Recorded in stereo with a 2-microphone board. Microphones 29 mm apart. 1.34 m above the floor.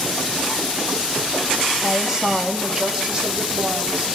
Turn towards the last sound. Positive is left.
turn(degrees=-35)  # may be behind; listen again after turning